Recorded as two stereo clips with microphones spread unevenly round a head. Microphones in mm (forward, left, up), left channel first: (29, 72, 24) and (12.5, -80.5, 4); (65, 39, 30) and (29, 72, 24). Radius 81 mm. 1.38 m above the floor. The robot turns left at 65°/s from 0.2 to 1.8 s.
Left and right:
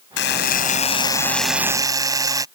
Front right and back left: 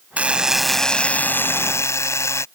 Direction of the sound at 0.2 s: 75° left.